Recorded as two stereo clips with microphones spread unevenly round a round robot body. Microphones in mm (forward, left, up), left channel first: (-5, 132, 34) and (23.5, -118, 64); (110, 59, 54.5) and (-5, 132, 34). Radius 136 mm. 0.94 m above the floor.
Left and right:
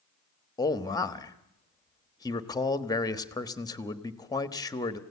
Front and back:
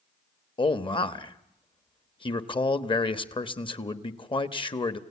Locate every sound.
0.6 s a man speaking: 25° left, 1.3 m